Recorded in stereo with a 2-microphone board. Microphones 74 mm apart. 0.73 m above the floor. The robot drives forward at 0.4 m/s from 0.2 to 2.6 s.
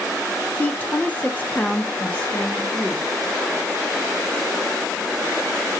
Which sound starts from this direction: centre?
A woman speaking, at 0.6 s.